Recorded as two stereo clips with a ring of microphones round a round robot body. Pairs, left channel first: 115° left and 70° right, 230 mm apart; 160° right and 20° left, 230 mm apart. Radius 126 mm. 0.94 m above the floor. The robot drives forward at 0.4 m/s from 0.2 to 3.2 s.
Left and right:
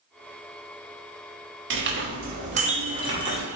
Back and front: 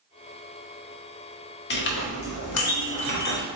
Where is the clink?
110° right, 0.8 m; by 3.5 s 140° right, 1.1 m.